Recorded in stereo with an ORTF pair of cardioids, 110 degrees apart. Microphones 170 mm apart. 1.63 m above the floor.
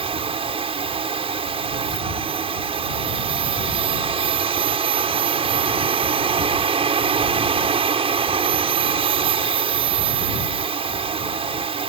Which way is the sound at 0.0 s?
35° right.